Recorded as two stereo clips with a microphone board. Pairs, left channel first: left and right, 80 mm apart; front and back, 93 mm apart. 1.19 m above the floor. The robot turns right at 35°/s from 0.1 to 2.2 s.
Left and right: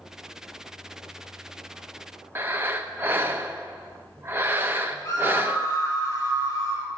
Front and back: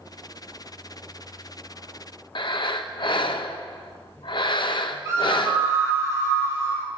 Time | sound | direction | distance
2.4 | breathing | 25° right | 0.7 m
5.0 | a scream | 130° left | 5 m